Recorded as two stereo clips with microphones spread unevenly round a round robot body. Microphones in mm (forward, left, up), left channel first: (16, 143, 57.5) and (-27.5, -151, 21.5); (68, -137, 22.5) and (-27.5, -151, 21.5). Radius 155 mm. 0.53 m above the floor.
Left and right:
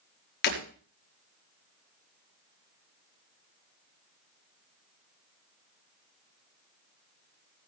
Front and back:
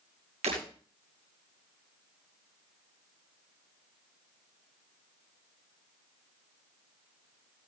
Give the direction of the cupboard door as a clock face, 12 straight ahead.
I don't hear a cupboard door.